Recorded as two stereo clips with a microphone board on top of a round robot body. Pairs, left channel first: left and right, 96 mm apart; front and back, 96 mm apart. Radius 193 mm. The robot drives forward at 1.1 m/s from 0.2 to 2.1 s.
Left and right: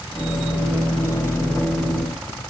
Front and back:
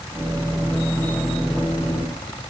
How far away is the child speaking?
No child speaking in this recording.